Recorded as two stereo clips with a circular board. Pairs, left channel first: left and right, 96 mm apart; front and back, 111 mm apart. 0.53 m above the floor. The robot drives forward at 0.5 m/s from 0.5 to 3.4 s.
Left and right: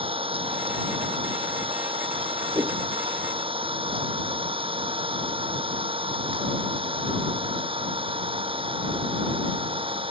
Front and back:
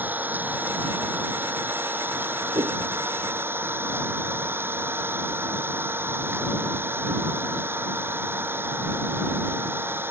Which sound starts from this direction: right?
An engine running, at 0.0 s.